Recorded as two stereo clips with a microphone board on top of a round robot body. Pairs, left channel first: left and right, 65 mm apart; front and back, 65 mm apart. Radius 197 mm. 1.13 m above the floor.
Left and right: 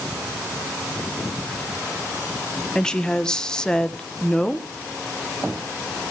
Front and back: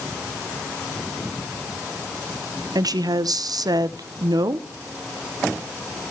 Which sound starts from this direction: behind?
A woman speaking, at 2.8 s.